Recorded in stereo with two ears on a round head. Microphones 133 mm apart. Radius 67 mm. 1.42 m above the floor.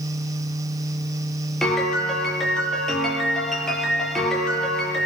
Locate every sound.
1.6 s a piano: 5° left (ahead or behind), 6 m